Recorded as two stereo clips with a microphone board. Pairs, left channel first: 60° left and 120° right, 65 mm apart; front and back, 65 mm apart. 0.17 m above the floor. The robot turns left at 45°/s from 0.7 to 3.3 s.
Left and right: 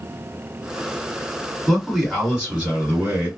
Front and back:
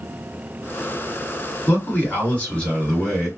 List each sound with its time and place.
1.7 s a man speaking: 25° right, 2.0 m; by 3.3 s 95° right, 2.0 m